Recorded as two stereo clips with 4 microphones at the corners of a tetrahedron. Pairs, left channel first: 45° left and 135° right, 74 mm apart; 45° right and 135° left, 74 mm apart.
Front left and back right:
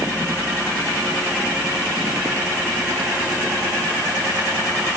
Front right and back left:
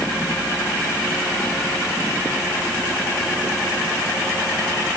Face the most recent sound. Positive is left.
No sound to turn to.